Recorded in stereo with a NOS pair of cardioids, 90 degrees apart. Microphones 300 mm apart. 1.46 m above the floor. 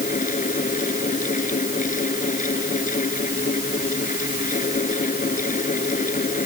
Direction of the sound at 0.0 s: 25° left.